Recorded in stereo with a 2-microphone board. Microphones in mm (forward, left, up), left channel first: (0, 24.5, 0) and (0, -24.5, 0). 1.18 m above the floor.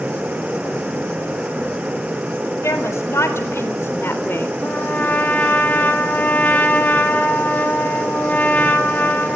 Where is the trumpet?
35° left (ahead or behind), 3 m.